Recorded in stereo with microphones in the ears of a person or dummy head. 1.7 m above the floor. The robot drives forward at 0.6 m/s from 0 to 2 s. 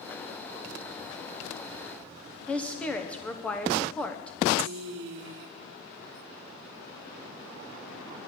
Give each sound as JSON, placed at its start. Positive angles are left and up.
{"t": 2.5, "sound": "a woman speaking", "side_deg": 10, "distance_m": 1.2}
{"t": 4.6, "sound": "a woman speaking", "side_deg": -80, "distance_m": 1.8}